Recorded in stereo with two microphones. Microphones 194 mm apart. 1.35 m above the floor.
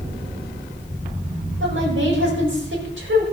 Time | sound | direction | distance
1.6 | a woman speaking | 85° right | 5.5 m